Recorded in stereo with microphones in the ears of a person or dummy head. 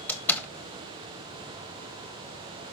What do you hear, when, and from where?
0.1 s a door slam: 10° left (ahead or behind), 1.0 m